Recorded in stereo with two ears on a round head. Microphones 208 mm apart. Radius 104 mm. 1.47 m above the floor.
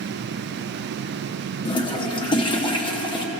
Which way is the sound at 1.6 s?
20° left (ahead or behind).